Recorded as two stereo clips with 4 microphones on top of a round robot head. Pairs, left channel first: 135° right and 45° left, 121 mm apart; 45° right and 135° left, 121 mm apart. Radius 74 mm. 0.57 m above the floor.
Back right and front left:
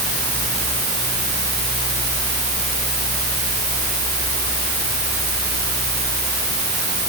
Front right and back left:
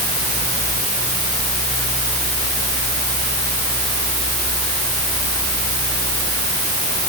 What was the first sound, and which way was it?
Only background noise.